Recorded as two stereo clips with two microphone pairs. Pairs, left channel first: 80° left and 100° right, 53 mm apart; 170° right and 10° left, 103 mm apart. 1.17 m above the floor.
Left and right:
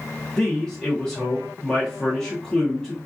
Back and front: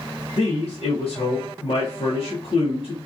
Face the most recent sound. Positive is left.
turn(degrees=155)